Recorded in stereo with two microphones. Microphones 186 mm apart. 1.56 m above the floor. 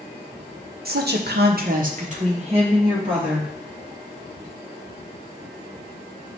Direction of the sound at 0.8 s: 60° right (ahead or behind).